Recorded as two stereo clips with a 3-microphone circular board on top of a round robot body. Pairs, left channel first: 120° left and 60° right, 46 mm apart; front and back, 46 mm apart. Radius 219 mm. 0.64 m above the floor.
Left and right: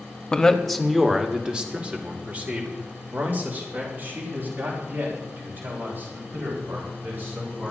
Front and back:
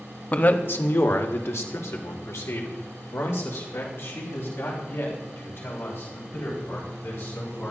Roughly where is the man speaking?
Ahead left.